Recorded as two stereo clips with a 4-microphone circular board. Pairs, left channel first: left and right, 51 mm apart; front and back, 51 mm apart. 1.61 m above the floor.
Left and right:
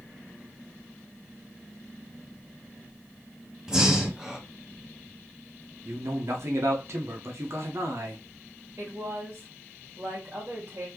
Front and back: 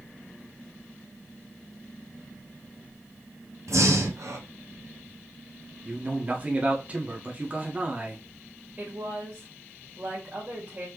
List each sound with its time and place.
3.7 s breathing: 165° right, 0.8 m
5.8 s a man speaking: 120° right, 1.2 m
8.8 s a woman speaking: 125° right, 1.8 m